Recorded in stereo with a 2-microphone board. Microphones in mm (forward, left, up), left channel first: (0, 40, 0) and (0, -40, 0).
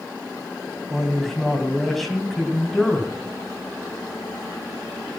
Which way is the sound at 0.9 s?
Centre (ahead or behind).